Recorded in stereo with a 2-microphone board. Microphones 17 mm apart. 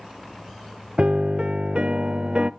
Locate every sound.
1.0 s a piano: 60° right (ahead or behind), 0.6 m